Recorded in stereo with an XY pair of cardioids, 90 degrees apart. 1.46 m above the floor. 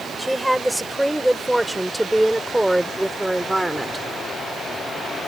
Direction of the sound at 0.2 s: Straight ahead.